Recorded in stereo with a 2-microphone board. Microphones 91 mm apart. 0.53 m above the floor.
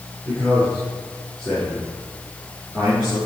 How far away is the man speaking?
About 6 m.